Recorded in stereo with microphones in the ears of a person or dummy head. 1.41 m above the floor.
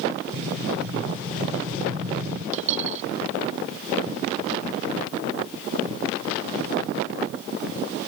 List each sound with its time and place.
0.3 s an explosion: 5° right (ahead or behind)
2.5 s a dropped coin: 40° right (ahead or behind)